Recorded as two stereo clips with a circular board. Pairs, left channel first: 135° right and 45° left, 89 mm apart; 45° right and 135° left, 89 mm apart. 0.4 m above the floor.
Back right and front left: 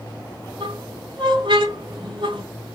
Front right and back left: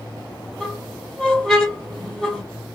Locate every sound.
0.6 s a squeak: 40° left, 2.5 m